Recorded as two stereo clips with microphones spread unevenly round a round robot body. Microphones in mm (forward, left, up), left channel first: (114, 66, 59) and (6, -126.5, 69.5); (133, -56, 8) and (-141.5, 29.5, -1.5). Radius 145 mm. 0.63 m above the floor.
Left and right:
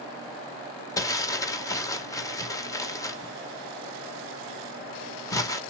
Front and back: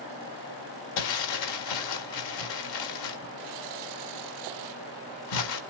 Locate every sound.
1.0 s crumpling: 15° right, 1.7 m